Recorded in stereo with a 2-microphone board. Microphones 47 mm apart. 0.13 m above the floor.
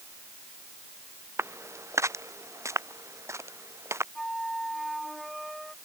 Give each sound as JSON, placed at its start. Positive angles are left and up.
{"t": 1.4, "sound": "footsteps", "side_deg": -60}
{"t": 4.2, "sound": "a flute", "side_deg": 0}